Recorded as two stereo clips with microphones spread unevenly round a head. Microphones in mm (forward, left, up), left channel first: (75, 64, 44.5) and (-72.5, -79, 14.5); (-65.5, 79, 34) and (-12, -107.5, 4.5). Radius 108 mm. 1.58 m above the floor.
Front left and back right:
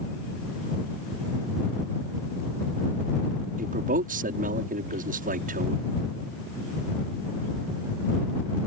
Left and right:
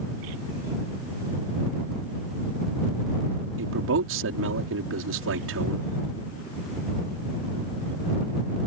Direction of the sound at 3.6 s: 85° right.